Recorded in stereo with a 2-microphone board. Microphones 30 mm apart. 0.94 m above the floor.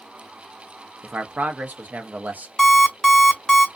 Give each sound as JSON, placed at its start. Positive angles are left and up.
{"t": 1.0, "sound": "a man speaking", "side_deg": -65, "distance_m": 0.6}
{"t": 2.6, "sound": "an alarm clock", "side_deg": 5, "distance_m": 0.7}